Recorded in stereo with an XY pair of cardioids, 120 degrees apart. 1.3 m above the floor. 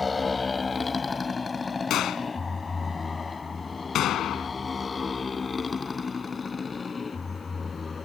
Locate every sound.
0.0 s a motorcycle: 20° left; by 8.1 s 25° left
1.9 s a gunshot: 65° left